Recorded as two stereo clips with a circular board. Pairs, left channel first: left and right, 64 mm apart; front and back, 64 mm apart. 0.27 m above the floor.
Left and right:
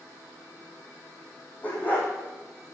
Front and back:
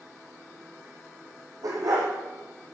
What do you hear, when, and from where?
1.6 s a dog barking: 155° left, 4.5 m